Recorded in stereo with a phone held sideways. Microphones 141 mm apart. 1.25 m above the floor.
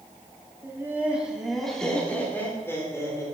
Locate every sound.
0.6 s laughter: 20° right (ahead or behind), 2.5 m; by 3.2 s 20° left (ahead or behind), 4 m